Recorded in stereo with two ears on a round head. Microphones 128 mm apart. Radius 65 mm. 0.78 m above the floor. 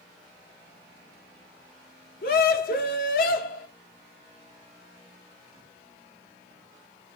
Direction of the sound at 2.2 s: 70° left (ahead or behind).